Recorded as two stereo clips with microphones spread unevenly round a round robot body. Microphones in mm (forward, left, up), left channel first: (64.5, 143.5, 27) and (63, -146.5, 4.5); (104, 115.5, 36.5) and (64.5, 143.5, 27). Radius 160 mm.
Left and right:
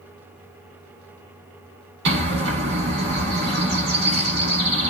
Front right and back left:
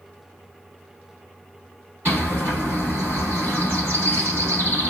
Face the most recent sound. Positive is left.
turn(degrees=-140)